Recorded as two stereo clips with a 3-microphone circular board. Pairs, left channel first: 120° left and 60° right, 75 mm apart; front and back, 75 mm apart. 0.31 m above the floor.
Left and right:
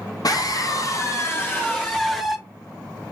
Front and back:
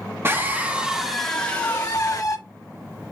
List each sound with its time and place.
0.2 s a scream: 130° left, 1.5 m; by 2.4 s 35° left, 1.6 m